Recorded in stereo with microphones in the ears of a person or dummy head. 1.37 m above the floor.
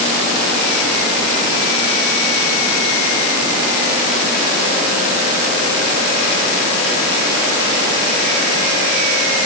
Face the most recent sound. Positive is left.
No sound to turn to.